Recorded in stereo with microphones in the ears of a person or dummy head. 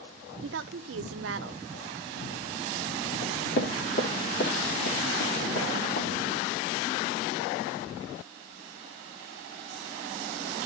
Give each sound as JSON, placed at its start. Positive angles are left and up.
{"t": 0.4, "sound": "a woman speaking", "side_deg": -75, "distance_m": 0.7}
{"t": 3.2, "sound": "knocking", "side_deg": 75, "distance_m": 3.0}